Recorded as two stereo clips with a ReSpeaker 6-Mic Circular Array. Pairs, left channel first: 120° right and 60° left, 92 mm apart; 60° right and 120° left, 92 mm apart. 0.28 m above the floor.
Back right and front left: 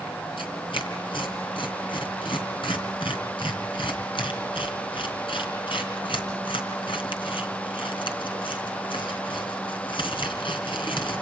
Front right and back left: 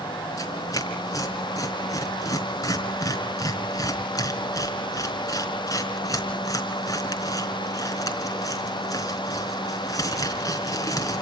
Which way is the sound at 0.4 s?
110° right.